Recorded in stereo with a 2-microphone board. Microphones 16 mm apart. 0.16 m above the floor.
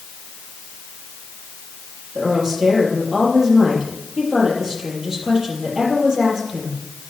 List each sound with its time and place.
2.1 s a woman speaking: 55° right (ahead or behind), 5 m